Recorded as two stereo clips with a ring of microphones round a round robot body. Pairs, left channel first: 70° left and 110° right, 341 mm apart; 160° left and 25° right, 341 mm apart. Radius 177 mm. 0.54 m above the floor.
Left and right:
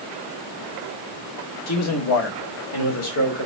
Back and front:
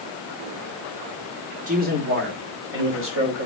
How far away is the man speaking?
About 1.9 m.